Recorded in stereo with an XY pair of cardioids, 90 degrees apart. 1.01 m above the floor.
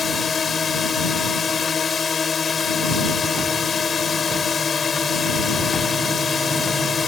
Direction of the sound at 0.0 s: 45° left.